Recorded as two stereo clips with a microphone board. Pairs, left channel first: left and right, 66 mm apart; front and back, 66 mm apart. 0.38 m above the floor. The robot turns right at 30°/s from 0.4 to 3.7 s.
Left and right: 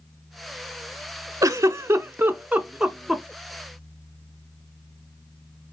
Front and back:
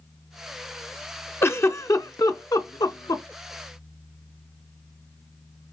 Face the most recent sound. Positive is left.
turn(degrees=15)